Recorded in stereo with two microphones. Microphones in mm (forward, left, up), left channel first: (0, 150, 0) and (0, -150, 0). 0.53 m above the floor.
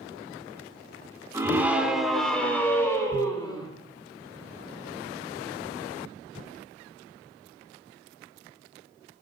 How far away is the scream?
About 1.7 m.